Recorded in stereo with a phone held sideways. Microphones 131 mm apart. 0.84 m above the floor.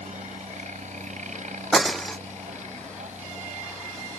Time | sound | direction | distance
0.0 | a helicopter | 70° right (ahead or behind) | ?
1.7 | breaking glass | centre (ahead or behind) | ?